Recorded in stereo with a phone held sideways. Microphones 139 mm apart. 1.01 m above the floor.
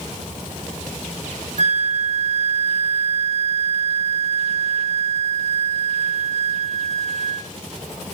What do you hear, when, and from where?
1.6 s a flute: 55° right (ahead or behind), 0.6 m